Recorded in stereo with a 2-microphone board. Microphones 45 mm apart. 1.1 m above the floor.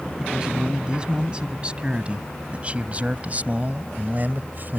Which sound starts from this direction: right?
A man speaking, at 0.2 s.